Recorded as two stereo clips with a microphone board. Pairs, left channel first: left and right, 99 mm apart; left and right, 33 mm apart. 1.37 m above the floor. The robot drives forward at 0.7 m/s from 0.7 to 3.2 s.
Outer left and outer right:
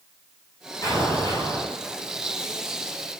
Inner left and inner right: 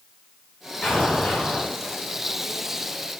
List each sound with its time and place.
0.8 s an explosion: 35° left (ahead or behind), 4.5 m; by 1.7 s 40° left (ahead or behind), 4 m